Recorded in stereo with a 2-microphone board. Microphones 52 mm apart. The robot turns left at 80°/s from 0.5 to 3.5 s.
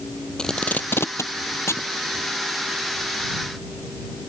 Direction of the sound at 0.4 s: 10° left (ahead or behind).